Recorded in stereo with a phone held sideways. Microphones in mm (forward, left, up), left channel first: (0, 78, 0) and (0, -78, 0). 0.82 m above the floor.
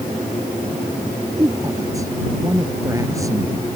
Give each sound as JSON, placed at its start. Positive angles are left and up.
{"t": 1.4, "sound": "a woman speaking", "side_deg": -20}